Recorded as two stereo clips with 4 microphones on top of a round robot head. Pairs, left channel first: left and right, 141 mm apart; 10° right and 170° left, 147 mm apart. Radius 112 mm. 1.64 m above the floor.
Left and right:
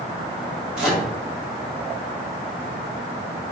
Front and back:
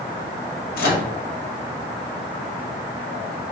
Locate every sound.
0.8 s a microwave: 5° right, 0.5 m